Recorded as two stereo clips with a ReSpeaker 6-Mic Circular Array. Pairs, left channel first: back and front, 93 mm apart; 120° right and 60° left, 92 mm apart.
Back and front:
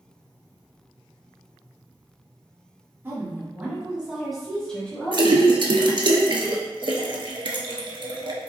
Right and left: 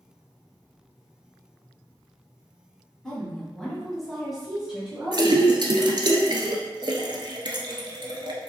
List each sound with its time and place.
3.0 s a woman speaking: 40° right, 1.2 m; by 5.5 s 135° left, 1.2 m
5.1 s a splash: 25° left, 0.6 m